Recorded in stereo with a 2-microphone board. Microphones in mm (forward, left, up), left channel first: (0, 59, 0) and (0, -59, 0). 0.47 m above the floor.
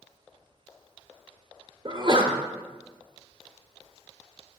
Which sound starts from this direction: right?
A sneeze, at 1.9 s.